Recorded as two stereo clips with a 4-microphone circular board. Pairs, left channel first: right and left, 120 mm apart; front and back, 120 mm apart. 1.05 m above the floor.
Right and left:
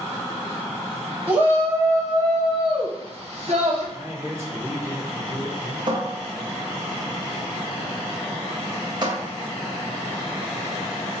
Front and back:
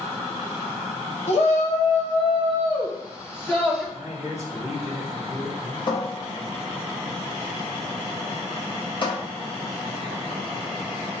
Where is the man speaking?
25° left, 2.5 m.